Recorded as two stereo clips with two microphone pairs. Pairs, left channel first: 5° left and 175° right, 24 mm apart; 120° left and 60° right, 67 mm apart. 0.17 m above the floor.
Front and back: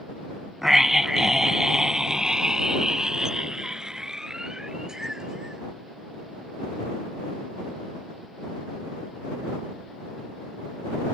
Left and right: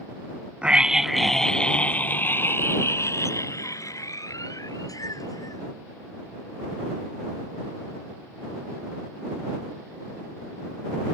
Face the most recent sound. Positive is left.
turn(degrees=125)